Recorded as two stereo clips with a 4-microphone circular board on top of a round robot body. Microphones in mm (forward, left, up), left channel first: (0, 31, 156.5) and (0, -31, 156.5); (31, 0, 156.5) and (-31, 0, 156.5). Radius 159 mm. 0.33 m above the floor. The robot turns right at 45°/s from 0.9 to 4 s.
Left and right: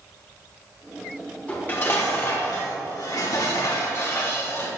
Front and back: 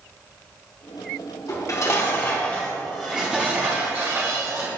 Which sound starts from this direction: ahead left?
Dishes clattering, at 1.5 s.